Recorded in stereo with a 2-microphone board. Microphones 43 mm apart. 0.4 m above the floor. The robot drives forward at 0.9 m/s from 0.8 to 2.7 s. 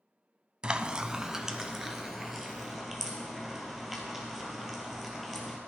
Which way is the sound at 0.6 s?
25° right (ahead or behind).